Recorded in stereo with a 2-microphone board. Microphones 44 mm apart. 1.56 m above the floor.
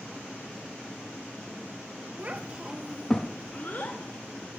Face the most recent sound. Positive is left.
turn(degrees=55)  # may be behind; listen again after turning